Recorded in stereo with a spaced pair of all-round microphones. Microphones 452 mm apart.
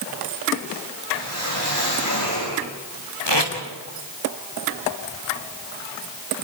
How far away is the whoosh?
About 7.5 m.